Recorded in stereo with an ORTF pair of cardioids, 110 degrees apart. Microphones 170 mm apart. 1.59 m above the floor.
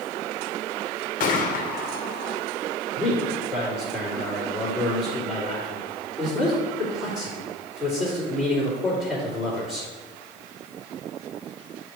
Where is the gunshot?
55° left, 0.9 m.